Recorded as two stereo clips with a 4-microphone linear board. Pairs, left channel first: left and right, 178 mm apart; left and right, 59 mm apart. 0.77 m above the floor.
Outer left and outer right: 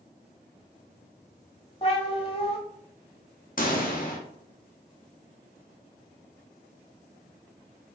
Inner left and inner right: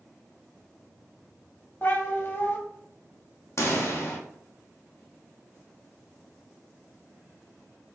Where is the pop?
50° left (ahead or behind), 1.6 m.